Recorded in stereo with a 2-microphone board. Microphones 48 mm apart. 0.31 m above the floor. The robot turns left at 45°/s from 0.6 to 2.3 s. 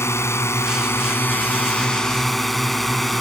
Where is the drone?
80° left; by 3.2 s straight ahead.